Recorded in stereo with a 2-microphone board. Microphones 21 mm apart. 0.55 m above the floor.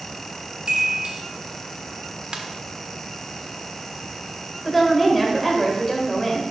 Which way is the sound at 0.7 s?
55° right (ahead or behind).